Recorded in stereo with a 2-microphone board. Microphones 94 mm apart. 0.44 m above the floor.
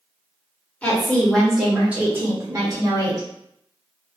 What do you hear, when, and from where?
0.8 s a woman speaking: 15° left (ahead or behind), 1.1 m; by 3.3 s 45° right (ahead or behind), 1.2 m